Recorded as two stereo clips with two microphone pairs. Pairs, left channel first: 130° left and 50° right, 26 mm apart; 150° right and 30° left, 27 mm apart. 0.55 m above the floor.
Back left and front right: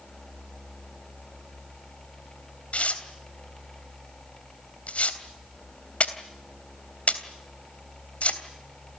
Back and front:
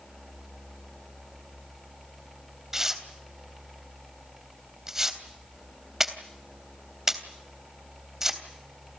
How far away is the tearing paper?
About 3 m.